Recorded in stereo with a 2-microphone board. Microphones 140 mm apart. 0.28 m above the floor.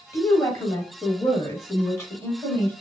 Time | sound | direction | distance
0.1 | a woman speaking | 20° left (ahead or behind) | 1.8 m